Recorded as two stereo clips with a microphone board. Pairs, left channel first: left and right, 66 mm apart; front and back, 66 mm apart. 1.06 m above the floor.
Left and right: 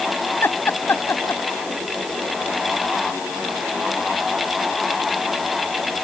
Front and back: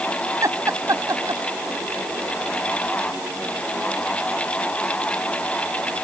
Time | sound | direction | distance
0.4 | laughter | 145° left | ?